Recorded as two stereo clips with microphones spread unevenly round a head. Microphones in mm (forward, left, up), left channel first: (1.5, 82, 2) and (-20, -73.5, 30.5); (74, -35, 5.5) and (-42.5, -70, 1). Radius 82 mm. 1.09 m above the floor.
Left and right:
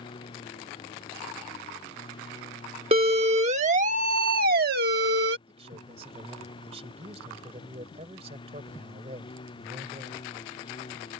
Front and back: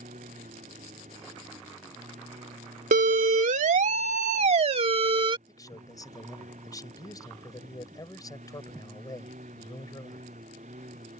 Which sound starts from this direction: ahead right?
A man speaking, at 5.5 s.